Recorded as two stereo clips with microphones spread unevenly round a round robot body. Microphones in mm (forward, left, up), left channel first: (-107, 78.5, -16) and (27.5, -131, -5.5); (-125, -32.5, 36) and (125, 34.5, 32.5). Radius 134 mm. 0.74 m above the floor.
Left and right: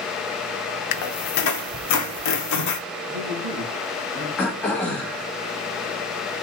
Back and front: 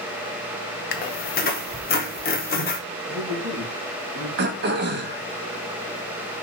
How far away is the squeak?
About 0.7 m.